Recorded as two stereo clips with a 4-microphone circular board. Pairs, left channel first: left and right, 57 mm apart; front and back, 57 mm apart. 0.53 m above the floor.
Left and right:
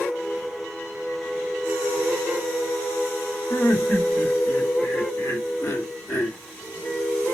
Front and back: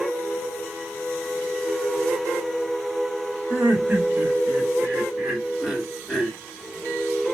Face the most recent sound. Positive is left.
turn(degrees=80)